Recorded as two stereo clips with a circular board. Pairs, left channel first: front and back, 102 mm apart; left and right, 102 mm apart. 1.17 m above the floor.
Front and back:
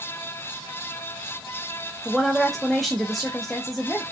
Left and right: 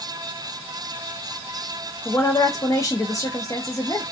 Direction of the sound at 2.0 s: 85° left.